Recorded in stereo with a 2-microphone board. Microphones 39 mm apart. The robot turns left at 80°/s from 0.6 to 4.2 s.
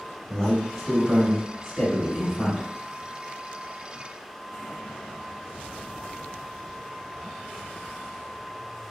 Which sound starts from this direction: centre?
A man speaking, at 0.3 s.